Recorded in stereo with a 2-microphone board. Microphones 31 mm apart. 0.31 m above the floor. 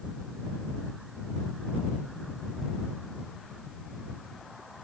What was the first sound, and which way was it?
Only background noise.